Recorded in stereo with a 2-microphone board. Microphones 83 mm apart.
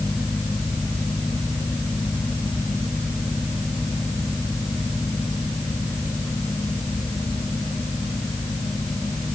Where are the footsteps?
No footsteps in this recording.